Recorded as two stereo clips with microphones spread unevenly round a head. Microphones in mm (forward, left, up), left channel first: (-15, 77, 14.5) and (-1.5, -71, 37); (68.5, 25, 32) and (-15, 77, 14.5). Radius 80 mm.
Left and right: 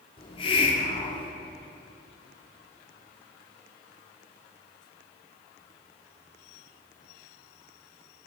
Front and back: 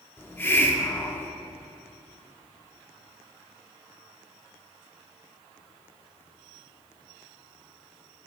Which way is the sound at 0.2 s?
40° left.